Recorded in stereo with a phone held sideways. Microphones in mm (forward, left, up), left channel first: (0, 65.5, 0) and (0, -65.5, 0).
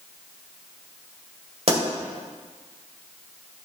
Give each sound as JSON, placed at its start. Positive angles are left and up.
{"t": 1.7, "sound": "a pop", "side_deg": -50, "distance_m": 2.0}